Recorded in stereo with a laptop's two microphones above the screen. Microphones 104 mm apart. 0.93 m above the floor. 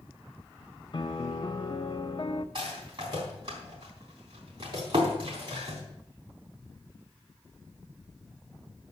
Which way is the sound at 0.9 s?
50° left (ahead or behind).